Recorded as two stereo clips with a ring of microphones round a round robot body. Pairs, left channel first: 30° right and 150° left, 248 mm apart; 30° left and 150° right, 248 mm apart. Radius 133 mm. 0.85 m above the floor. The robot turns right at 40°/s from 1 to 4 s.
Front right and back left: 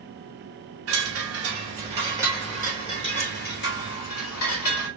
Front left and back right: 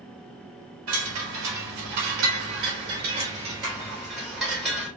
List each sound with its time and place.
0.9 s a chime: straight behind, 3 m; by 4.9 s 60° right, 3 m